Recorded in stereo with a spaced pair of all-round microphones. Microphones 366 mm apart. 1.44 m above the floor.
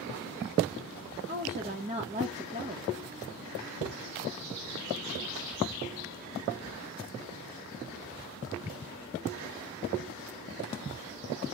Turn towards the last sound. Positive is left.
turn(degrees=-30)  # may be behind; listen again after turning